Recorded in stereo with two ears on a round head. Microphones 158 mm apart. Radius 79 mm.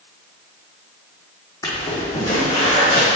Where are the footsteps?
20° left (ahead or behind), 1.8 m; by 3.2 s 30° left (ahead or behind), 2.5 m.